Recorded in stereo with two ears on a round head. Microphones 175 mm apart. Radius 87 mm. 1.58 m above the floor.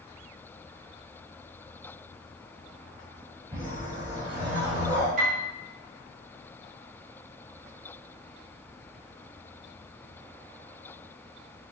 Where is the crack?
I don't hear a crack.